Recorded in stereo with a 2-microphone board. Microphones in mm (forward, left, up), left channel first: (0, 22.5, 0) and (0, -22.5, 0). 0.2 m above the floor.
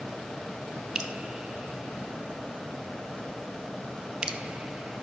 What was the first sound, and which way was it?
Dripping, 20° right (ahead or behind).